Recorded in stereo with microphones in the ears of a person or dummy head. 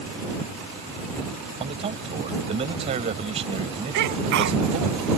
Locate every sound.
1.6 s a man speaking: 35° right (ahead or behind)
3.9 s a sneeze: 65° right (ahead or behind)